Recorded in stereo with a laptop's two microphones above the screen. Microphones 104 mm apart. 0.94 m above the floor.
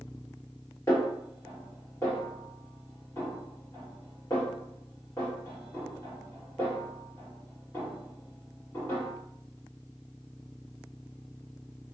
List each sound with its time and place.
0.9 s a snare drum: 25° left (ahead or behind), 1.5 m